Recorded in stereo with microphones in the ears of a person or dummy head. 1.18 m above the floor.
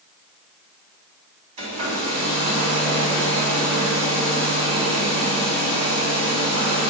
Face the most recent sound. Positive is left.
turn(degrees=-30)  # may be behind; listen again after turning